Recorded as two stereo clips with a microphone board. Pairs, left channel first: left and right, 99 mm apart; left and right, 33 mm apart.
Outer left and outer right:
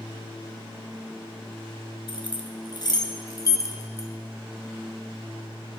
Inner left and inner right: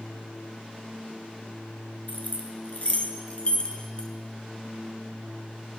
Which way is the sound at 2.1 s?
55° left (ahead or behind).